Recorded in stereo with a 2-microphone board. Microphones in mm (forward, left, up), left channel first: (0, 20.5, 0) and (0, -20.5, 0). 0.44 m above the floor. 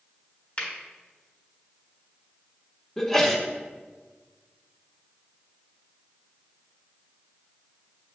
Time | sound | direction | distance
0.6 | a finger snap | 35° left (ahead or behind) | 1.3 m
3.0 | a sneeze | 10° left (ahead or behind) | 0.8 m